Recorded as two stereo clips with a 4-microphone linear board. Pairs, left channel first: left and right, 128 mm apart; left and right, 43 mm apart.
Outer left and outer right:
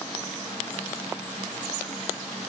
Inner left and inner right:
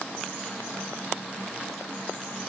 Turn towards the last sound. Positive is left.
No sound to turn to.